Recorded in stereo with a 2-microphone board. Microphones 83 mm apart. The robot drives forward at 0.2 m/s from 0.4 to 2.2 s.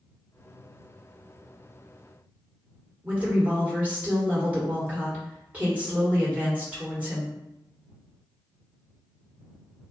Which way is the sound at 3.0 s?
20° right (ahead or behind).